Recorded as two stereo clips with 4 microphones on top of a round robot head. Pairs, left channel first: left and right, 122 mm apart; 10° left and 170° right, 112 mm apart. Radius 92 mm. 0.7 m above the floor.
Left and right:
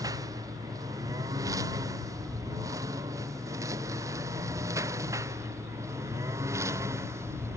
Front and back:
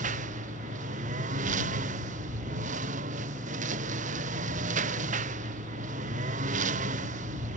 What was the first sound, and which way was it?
A lawn mower, 160° right.